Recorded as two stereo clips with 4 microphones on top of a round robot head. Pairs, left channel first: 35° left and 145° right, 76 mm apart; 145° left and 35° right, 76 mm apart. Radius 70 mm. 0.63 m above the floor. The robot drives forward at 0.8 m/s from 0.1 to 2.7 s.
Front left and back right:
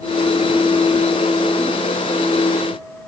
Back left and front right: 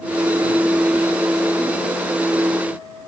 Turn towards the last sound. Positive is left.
No sound to turn to.